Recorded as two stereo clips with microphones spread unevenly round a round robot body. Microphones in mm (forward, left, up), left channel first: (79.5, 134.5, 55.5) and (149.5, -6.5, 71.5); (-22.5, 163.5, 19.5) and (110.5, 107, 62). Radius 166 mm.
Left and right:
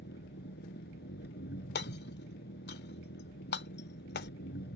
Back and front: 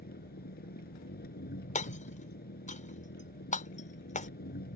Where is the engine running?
155° left.